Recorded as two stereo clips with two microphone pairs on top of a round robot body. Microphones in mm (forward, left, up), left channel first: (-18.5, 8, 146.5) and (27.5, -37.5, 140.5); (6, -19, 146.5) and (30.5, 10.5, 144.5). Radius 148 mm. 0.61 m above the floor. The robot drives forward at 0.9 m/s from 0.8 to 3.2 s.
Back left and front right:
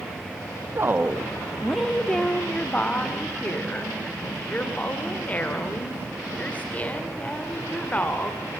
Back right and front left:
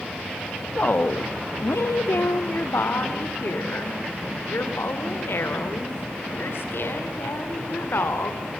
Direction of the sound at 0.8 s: 85° right.